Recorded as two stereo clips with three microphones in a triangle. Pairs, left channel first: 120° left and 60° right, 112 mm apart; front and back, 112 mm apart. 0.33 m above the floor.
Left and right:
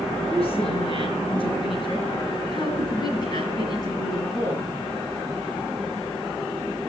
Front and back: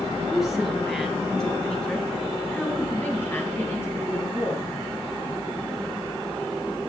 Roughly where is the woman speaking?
Left.